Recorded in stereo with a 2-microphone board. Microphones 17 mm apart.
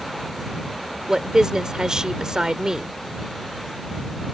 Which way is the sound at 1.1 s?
45° right (ahead or behind).